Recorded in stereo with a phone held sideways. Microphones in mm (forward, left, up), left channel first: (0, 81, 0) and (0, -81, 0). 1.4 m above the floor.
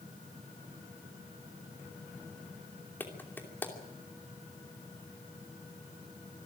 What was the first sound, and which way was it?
A clap, 15° left (ahead or behind).